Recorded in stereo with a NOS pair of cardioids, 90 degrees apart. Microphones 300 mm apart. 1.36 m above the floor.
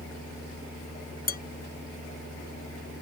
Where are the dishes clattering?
30° left.